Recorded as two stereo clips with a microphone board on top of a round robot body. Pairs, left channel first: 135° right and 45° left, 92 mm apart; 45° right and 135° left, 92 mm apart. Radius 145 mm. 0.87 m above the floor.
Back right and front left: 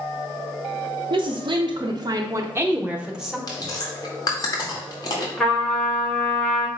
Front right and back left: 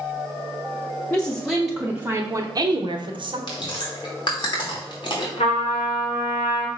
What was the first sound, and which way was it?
A woman speaking, 30° left.